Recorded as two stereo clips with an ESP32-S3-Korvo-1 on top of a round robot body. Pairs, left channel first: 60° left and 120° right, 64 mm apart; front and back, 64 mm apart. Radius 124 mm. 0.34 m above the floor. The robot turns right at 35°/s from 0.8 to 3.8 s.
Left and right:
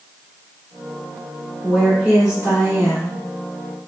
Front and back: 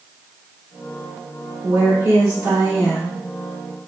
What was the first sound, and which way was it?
A woman speaking, 150° left.